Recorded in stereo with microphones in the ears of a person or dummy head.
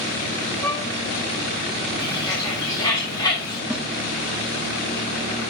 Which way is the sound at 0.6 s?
10° left (ahead or behind).